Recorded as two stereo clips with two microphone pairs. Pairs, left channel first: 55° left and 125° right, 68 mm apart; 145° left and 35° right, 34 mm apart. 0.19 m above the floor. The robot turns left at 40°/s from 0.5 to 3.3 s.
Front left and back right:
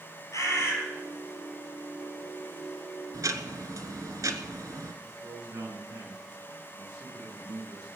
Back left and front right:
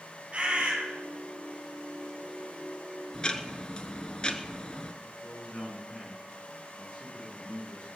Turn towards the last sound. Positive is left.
turn(degrees=-160)